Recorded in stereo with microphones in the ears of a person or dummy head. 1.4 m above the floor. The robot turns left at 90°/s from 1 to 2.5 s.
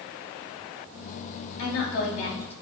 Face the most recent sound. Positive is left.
turn(degrees=15)